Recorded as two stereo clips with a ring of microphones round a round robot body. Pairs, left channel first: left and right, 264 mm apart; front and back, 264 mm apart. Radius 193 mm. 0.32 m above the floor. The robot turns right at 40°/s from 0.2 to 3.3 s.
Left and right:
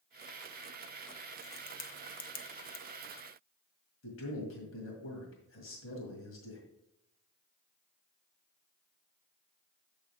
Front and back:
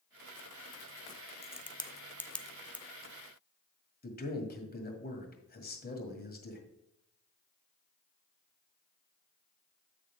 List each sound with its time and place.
1.4 s a crack: 45° left, 0.8 m; by 2.9 s 105° left, 0.8 m
4.0 s a man speaking: 50° left, 2.0 m